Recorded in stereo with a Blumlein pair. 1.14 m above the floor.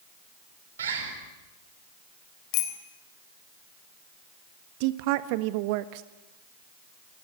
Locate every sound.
0.8 s a bird: 65° right, 4.5 m
2.5 s a bicycle bell: 40° left, 3.5 m
4.8 s a woman speaking: 45° right, 1.5 m